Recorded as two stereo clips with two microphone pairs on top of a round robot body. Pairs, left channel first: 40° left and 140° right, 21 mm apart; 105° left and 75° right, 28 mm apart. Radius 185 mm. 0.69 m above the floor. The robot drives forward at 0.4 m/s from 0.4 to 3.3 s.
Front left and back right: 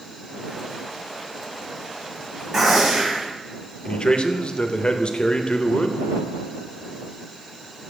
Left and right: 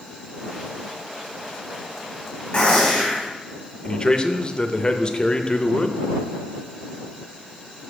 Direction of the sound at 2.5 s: 160° left.